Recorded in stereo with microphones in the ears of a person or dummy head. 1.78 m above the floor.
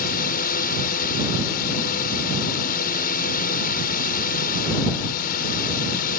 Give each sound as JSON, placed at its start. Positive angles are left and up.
{"t": 0.0, "sound": "a drone", "side_deg": 45}